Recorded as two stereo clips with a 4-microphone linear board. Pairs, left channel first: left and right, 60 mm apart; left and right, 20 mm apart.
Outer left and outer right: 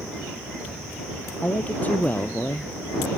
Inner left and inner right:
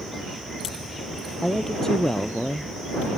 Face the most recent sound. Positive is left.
turn(degrees=25)  # may be behind; listen again after turning